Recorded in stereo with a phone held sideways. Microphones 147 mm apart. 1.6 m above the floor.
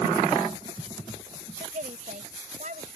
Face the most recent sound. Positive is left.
turn(degrees=-60)  # may be behind; listen again after turning